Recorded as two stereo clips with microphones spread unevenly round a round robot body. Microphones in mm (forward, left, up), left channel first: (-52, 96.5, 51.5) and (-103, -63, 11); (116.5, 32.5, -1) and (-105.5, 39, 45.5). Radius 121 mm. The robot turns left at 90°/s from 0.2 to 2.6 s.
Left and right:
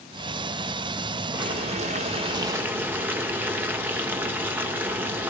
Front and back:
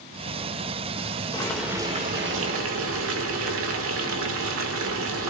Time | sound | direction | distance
1.3 | boiling | 60° right | 2 m